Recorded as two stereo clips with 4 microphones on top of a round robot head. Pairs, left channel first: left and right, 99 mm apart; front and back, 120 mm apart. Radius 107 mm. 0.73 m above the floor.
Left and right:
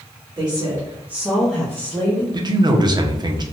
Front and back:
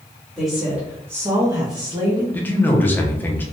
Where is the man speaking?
65° right, 0.7 m.